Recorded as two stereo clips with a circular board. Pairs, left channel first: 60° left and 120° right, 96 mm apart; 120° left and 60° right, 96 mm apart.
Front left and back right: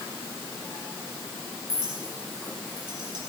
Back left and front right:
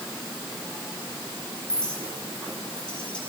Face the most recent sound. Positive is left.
turn(degrees=-160)